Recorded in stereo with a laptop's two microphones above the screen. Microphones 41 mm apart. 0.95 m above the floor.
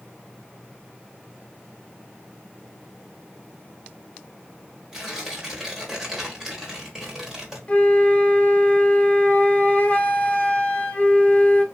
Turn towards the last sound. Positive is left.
turn(degrees=25)  # may be behind; listen again after turning